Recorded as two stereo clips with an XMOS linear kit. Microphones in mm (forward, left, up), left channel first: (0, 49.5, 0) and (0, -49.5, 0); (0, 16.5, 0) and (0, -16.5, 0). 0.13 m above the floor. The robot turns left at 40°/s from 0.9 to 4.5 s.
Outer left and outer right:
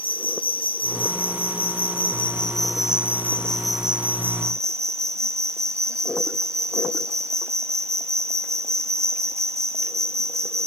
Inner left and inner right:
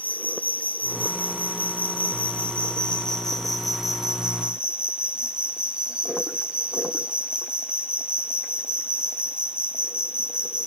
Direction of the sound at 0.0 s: 110° left.